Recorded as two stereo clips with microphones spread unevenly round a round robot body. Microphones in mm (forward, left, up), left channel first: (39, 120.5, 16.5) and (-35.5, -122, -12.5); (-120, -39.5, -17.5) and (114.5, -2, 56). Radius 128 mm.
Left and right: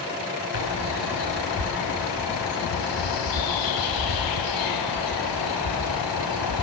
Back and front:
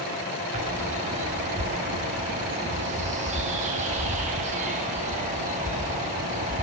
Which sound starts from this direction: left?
A bird, at 0.5 s.